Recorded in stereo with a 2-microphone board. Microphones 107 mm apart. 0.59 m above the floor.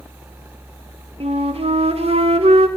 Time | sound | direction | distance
1.2 | a flute | 70° right (ahead or behind) | 0.9 m